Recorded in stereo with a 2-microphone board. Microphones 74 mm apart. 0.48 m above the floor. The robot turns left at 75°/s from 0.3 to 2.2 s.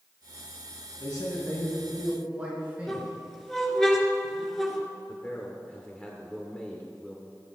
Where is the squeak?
5° left (ahead or behind), 2 m.